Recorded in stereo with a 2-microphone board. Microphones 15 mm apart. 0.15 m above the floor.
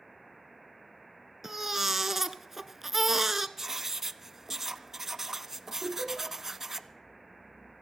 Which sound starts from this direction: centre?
Writing, at 3.6 s.